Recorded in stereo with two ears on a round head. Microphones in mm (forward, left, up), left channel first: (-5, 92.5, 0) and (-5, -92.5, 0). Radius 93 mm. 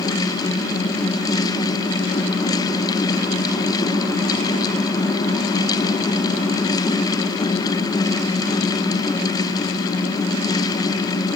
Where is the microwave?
No microwave in this recording.